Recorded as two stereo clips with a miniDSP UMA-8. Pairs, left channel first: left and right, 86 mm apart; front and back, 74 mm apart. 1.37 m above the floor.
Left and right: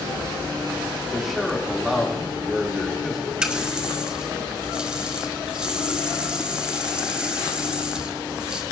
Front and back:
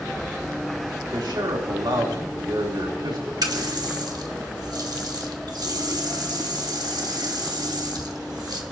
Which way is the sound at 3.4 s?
170° right.